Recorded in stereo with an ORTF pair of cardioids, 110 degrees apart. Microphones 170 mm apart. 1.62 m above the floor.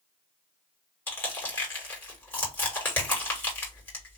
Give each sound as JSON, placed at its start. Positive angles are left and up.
{"t": 1.1, "sound": "crushing", "azimuth_deg": 10, "distance_m": 1.9}